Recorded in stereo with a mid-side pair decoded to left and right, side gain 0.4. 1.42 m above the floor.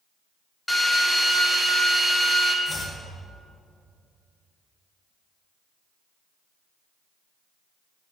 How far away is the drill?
About 2.5 m.